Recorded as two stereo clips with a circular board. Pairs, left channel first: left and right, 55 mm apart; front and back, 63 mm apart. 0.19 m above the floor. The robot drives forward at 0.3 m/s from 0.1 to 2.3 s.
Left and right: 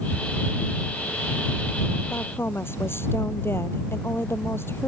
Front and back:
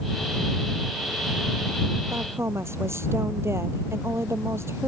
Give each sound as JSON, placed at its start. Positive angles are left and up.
{"t": 2.1, "sound": "a woman speaking", "azimuth_deg": 130}